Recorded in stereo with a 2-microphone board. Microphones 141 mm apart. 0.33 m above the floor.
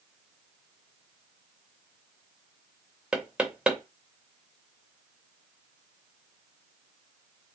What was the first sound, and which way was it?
Knocking, 5° right (ahead or behind).